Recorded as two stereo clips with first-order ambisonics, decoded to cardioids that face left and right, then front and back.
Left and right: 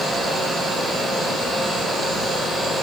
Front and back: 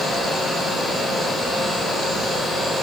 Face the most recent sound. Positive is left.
No sound to turn to.